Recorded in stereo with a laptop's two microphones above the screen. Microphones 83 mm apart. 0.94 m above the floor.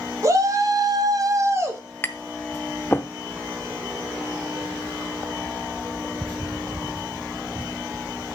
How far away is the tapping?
About 0.6 m.